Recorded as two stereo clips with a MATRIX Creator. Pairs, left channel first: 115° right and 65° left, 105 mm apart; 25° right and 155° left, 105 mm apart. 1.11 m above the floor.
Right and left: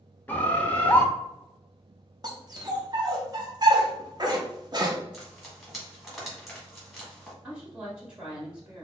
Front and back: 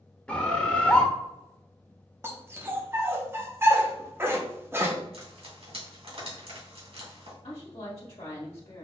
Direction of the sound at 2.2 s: 100° left.